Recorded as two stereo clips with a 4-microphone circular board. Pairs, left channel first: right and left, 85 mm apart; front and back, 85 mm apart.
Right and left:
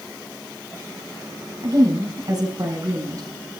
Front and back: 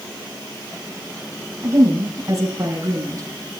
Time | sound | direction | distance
1.6 | a woman speaking | 135° left | 4 m